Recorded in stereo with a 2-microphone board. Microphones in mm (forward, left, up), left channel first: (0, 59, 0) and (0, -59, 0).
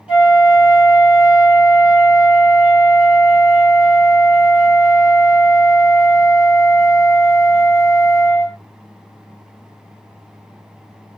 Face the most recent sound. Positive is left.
turn(degrees=-10)  # may be behind; listen again after turning